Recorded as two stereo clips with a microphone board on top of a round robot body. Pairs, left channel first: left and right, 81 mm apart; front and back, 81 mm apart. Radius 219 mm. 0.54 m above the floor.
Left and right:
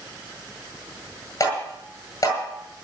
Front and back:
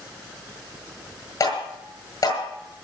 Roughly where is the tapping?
Ahead left.